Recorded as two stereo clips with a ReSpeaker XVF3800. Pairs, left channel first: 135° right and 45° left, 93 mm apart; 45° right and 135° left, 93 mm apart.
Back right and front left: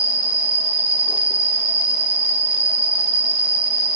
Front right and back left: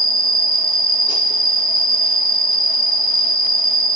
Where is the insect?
30° right, 2.5 m.